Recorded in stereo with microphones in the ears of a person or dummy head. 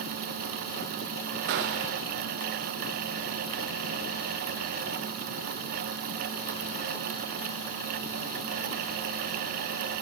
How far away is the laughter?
No laughter in this recording.